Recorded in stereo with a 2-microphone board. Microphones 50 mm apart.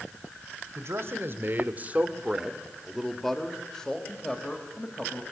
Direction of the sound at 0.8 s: 60° right (ahead or behind).